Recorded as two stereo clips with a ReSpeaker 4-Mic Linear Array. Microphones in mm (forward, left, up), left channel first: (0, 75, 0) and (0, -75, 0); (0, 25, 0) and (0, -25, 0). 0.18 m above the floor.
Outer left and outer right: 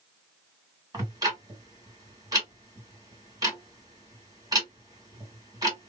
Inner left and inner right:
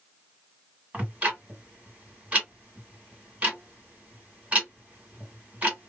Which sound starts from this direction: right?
Ticking, at 0.9 s.